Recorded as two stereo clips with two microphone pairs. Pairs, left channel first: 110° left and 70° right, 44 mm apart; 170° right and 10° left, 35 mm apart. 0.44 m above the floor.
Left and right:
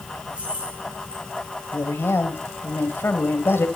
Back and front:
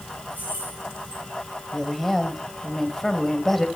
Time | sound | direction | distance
0.3 | keys jangling | 5° right | 7.5 m
1.7 | a woman speaking | 110° left | 2.5 m